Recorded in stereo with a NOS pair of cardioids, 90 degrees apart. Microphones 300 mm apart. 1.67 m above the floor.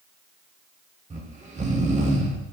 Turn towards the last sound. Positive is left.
turn(degrees=-25)